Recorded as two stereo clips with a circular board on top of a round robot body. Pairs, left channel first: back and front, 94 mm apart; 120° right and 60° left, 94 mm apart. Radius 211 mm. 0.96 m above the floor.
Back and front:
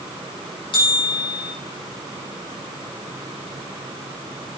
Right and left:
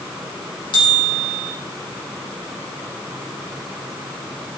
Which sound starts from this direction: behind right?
A bell, at 0.7 s.